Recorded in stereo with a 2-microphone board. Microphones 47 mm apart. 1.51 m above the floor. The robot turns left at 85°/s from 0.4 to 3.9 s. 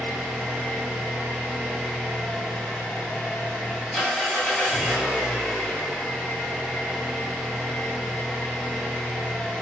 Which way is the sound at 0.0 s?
40° right.